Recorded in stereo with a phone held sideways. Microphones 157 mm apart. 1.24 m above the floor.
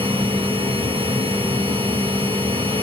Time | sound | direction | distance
0.0 | a machine running | 30° right (ahead or behind) | 1.1 m